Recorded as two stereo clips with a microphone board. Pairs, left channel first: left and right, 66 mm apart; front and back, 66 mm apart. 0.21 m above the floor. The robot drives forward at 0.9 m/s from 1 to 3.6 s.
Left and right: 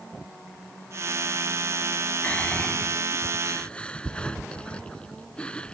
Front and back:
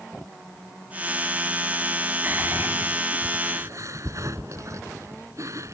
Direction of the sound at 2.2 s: 140° left.